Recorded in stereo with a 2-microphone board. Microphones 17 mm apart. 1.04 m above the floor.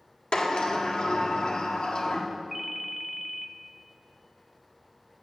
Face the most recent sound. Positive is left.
turn(degrees=-10)  # may be behind; listen again after turning